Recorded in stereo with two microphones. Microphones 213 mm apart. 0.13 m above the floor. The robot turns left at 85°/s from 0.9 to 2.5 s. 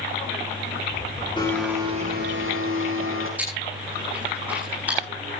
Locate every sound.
1.4 s a blender: 20° left, 7 m; by 3.3 s 75° right, 7 m
3.4 s chewing: 5° right (ahead or behind), 10 m